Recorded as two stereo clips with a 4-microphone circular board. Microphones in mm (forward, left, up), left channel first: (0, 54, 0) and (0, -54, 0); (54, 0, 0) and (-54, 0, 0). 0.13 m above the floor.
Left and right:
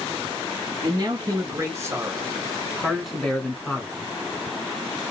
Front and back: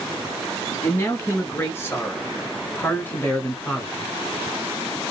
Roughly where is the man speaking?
Ahead right.